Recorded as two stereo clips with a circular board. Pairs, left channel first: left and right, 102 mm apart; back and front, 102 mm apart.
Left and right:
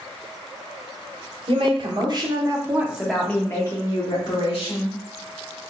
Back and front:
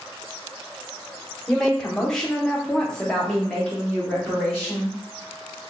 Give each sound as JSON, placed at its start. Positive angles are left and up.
{"t": 1.5, "sound": "a woman speaking", "azimuth_deg": -95, "distance_m": 1.5}